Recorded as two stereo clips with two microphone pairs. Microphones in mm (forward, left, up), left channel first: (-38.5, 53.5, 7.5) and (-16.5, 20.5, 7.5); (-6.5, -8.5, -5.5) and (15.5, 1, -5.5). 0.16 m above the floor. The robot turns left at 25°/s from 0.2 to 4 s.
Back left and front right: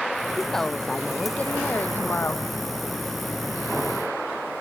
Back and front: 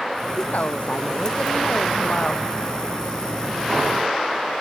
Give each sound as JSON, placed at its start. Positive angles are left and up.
{"t": 0.4, "sound": "a woman speaking", "azimuth_deg": -155}